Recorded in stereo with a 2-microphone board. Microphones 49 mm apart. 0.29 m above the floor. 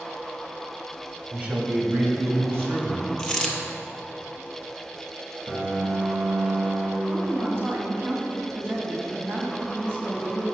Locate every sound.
1.3 s a man speaking: 30° right (ahead or behind), 1.5 m; by 3.1 s 55° right (ahead or behind), 2 m
3.2 s a dropped coin: 15° left (ahead or behind), 1.0 m
5.5 s a piano: 45° right (ahead or behind), 2.0 m
7.1 s a woman speaking: 55° right (ahead or behind), 1.9 m